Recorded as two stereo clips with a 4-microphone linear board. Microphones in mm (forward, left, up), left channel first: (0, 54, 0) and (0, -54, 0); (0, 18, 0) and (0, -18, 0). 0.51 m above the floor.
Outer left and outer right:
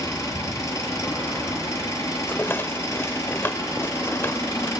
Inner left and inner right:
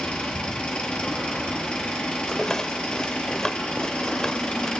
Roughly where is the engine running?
Left.